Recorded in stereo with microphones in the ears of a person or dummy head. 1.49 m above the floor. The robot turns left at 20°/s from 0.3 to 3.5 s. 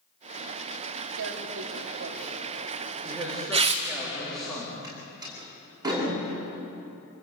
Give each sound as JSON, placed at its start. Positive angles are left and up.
{"t": 1.2, "sound": "tearing paper", "side_deg": -70, "distance_m": 2.0}
{"t": 3.0, "sound": "a man speaking", "side_deg": 0, "distance_m": 3.5}
{"t": 4.8, "sound": "a door slam", "side_deg": -20, "distance_m": 8.5}